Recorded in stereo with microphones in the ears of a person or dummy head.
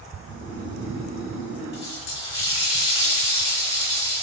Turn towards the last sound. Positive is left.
turn(degrees=35)  # may be behind; listen again after turning